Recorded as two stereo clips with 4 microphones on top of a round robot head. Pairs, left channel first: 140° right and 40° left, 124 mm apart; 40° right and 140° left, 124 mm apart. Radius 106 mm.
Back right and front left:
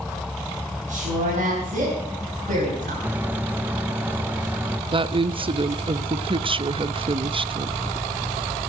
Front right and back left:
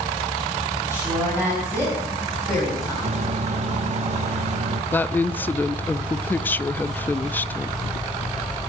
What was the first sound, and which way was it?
A woman speaking, 65° left.